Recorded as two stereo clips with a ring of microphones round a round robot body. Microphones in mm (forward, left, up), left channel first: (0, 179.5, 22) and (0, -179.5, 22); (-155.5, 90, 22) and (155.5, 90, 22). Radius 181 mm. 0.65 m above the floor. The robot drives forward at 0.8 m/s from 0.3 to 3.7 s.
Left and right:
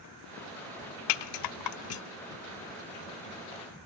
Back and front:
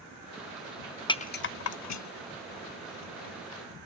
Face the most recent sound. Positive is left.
turn(degrees=165)